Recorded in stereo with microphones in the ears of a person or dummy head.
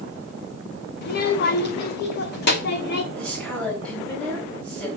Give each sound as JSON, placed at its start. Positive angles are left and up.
{"t": 1.0, "sound": "a child speaking", "side_deg": 55, "distance_m": 1.4}
{"t": 3.1, "sound": "a woman speaking", "side_deg": 5, "distance_m": 5.0}